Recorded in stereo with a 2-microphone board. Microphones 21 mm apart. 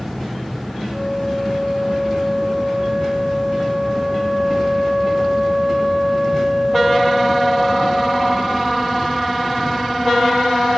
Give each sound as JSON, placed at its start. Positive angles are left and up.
{"t": 0.9, "sound": "a flute", "side_deg": 25, "distance_m": 6.0}